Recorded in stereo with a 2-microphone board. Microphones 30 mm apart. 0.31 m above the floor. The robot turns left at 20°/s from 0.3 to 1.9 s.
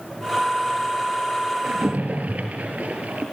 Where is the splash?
55° right (ahead or behind), 3 m; by 3.2 s 60° right (ahead or behind), 3 m.